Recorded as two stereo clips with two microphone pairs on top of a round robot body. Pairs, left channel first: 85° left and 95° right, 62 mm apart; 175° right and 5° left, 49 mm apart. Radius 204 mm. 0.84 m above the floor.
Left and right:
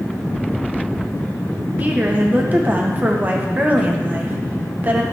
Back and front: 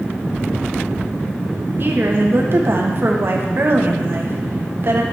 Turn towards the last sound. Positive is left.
turn(degrees=-40)